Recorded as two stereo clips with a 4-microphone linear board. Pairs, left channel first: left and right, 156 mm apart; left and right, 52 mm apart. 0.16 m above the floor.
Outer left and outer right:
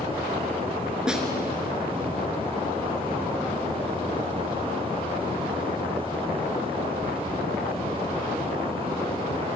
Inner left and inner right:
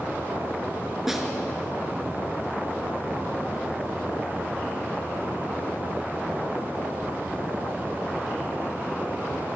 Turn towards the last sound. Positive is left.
turn(degrees=-5)  # may be behind; listen again after turning